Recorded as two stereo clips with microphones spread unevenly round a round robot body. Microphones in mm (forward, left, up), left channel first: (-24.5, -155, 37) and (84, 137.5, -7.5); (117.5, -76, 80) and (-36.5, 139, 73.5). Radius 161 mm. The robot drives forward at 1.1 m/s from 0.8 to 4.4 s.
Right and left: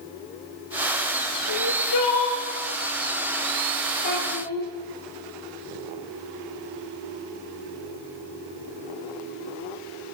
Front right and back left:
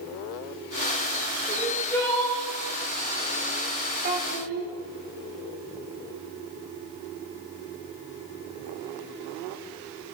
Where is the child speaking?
175° right, 1.7 m.